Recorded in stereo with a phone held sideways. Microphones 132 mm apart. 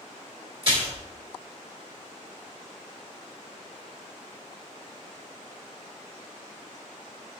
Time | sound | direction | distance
0.6 | a splash | 45° right (ahead or behind) | 1.9 m